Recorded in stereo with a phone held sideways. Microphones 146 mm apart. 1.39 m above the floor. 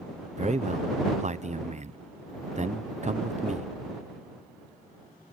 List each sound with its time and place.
0.4 s a man speaking: 50° right (ahead or behind)